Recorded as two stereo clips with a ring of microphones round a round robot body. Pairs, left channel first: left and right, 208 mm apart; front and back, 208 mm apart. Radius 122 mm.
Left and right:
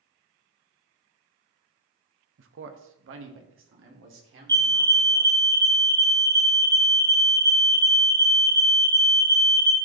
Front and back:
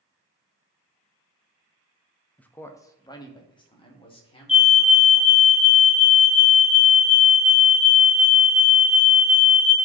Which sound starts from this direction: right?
A man speaking, at 2.4 s.